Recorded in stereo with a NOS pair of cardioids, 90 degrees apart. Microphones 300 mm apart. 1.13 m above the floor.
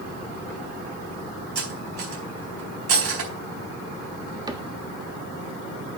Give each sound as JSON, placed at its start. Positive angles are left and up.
{"t": 1.6, "sound": "cutlery clinking", "azimuth_deg": -50, "distance_m": 4.0}
{"t": 4.5, "sound": "a cupboard door", "azimuth_deg": -15, "distance_m": 1.3}